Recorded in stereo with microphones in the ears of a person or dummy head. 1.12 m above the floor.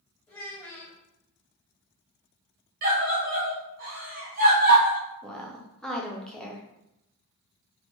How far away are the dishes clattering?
No dishes clattering in this recording.